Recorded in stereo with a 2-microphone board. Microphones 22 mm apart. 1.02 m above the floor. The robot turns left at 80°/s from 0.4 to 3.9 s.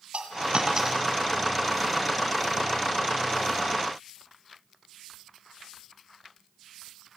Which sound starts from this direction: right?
A dropped coin, at 0.1 s.